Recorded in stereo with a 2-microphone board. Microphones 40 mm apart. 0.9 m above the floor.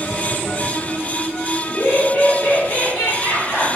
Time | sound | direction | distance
1.6 | laughter | 55° left (ahead or behind) | 1.7 m